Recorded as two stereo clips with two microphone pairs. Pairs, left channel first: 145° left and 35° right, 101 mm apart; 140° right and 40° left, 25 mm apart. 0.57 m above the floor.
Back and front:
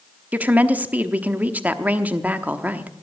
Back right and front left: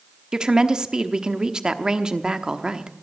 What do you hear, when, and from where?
0.3 s a woman speaking: 25° left, 0.9 m